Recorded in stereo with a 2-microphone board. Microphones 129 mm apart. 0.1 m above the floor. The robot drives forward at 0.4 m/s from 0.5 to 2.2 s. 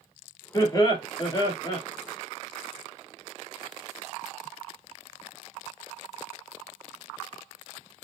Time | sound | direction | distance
0.5 | laughter | 30° left (ahead or behind) | 1.5 m